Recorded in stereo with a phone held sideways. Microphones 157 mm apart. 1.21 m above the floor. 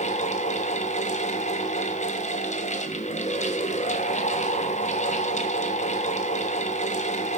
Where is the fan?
50° left (ahead or behind), 1.3 m.